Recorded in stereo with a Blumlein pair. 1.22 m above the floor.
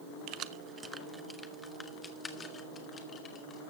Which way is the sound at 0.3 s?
40° right.